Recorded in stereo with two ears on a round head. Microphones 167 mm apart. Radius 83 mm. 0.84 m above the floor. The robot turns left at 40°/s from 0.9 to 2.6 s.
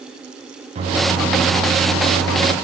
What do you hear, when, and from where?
0.8 s a microwave: 40° right, 0.8 m; by 2.5 s 105° right, 0.8 m